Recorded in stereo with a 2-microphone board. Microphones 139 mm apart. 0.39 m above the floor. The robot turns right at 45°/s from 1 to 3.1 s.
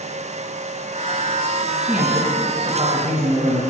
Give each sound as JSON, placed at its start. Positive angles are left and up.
{"t": 1.8, "sound": "a man speaking", "azimuth_deg": 180, "distance_m": 3.5}